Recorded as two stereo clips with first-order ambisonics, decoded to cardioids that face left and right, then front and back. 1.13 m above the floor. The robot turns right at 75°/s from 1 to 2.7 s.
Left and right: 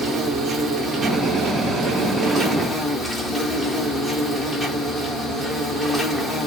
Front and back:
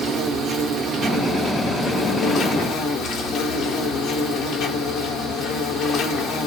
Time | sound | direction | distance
0.0 | an insect | 135° right | 0.8 m